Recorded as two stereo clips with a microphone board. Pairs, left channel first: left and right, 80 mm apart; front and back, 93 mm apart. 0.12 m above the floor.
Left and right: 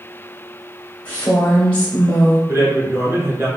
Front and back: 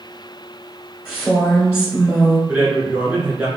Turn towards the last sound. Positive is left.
turn(degrees=-115)